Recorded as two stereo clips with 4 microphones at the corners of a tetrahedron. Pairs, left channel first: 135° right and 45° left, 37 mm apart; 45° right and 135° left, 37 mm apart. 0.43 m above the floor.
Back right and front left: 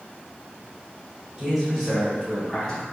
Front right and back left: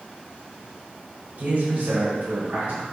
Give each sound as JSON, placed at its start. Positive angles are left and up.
{"t": 1.4, "sound": "a man speaking", "azimuth_deg": 115, "distance_m": 1.3}